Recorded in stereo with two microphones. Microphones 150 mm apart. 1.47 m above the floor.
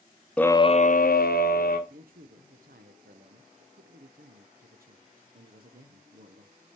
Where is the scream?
10° left (ahead or behind), 0.7 m; by 1.8 s 80° left, 1.5 m.